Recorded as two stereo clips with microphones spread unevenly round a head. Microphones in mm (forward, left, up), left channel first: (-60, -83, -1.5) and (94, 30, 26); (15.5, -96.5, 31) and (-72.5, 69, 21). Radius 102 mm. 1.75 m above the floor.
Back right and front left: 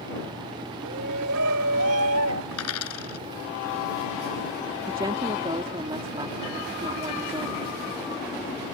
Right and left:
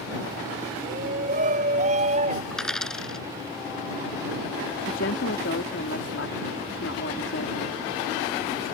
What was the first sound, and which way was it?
A shout, 65° left.